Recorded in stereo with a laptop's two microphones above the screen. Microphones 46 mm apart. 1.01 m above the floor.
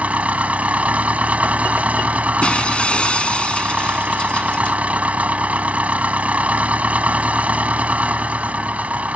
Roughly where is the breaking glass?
Left.